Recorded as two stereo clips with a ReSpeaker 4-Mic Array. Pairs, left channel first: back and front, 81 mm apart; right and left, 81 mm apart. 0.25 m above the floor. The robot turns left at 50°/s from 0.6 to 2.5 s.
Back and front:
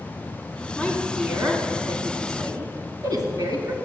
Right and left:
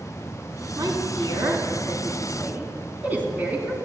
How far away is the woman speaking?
About 2 m.